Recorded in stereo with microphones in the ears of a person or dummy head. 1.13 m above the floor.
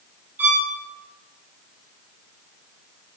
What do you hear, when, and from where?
0.4 s a violin: 10° right (ahead or behind), 2 m